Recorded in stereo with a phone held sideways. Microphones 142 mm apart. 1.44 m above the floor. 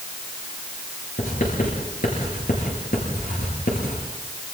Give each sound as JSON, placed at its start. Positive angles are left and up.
{"t": 1.2, "sound": "writing", "side_deg": 85, "distance_m": 8.5}